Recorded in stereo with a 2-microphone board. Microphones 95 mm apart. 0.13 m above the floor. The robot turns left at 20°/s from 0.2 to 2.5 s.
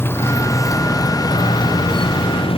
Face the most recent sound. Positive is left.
turn(degrees=75)  # may be behind; listen again after turning